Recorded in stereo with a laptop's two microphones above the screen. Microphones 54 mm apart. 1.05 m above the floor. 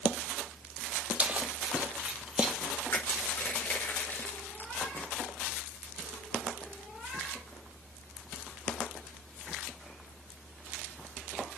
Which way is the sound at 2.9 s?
40° left (ahead or behind).